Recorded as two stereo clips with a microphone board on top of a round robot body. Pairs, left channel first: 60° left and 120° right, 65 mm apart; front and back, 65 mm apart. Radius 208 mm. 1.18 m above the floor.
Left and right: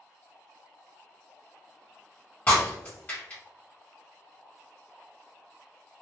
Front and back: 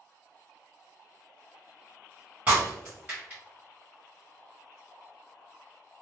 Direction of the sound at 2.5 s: 110° left.